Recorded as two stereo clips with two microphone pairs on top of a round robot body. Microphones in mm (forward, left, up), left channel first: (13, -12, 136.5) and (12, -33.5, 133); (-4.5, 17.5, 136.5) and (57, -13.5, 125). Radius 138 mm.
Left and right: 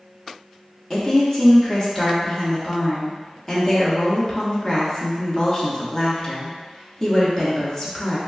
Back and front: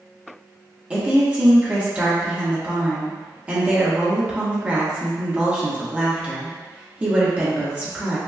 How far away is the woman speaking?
About 1.4 m.